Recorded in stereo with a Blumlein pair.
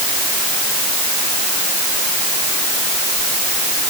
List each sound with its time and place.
Only background noise.